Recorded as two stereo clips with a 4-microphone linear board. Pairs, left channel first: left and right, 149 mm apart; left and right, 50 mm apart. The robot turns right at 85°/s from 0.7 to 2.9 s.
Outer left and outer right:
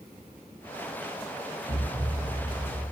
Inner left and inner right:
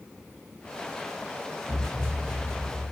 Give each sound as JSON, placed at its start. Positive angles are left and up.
{"t": 1.7, "sound": "a thud", "azimuth_deg": 115, "distance_m": 9.0}